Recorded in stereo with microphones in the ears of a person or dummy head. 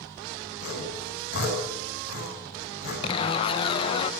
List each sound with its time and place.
0.6 s sawing: 60° left (ahead or behind), 10 m
3.0 s a zipper: 25° left (ahead or behind), 0.8 m